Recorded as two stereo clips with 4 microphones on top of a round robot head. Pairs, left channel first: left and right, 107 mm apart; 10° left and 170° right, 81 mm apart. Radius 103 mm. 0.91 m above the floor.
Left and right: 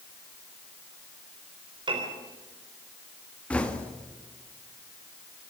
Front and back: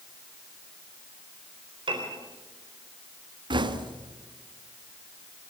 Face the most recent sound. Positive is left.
turn(degrees=170)